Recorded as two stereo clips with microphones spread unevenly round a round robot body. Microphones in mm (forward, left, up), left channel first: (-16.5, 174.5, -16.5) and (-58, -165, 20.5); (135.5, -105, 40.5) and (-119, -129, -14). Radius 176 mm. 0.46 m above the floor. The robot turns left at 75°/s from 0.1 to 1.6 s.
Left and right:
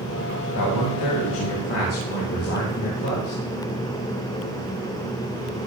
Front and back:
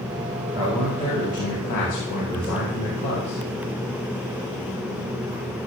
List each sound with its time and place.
0.6 s a man speaking: 115° left, 3 m; by 3.4 s 35° left, 3 m